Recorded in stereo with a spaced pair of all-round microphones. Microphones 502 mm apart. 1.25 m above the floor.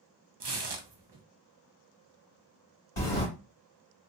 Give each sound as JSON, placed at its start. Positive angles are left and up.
{"t": 0.4, "sound": "tearing paper", "side_deg": -60, "distance_m": 0.5}
{"t": 3.0, "sound": "a sliding door", "side_deg": 85, "distance_m": 1.8}